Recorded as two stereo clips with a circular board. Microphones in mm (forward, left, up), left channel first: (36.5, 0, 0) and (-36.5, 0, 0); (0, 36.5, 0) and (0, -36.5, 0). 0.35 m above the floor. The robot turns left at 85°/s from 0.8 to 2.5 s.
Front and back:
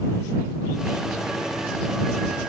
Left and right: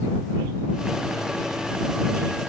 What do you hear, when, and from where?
Only background noise.